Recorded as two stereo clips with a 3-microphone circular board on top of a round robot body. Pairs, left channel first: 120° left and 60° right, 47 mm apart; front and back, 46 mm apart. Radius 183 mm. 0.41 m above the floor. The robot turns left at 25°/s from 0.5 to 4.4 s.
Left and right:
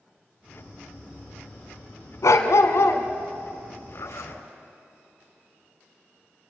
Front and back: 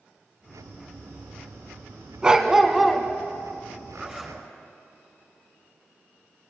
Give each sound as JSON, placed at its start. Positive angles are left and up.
{"t": 2.2, "sound": "a dog barking", "azimuth_deg": 110, "distance_m": 1.6}
{"t": 3.9, "sound": "a zipper", "azimuth_deg": 105, "distance_m": 3.5}